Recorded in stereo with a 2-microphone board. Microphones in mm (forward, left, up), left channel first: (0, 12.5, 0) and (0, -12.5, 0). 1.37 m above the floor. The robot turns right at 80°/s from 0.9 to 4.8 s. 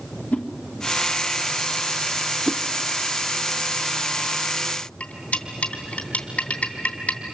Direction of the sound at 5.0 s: 65° left (ahead or behind).